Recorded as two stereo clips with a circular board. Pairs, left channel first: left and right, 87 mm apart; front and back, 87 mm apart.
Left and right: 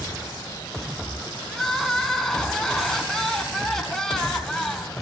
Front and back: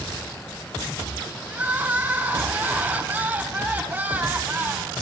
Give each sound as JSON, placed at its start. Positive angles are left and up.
{"t": 1.5, "sound": "crying", "azimuth_deg": 165, "distance_m": 1.6}